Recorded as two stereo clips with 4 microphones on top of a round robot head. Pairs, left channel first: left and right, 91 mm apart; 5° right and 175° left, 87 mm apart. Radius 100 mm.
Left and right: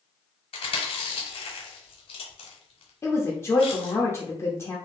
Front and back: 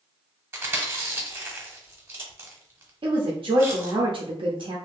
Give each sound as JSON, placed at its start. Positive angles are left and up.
{"t": 0.5, "sound": "chewing", "azimuth_deg": 110, "distance_m": 1.0}
{"t": 3.0, "sound": "a woman speaking", "azimuth_deg": 150, "distance_m": 0.7}